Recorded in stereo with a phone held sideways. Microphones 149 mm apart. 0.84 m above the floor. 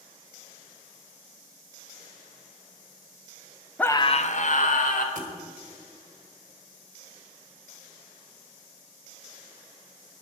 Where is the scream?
10° left (ahead or behind), 0.6 m; by 5.0 s 60° left (ahead or behind), 2.0 m.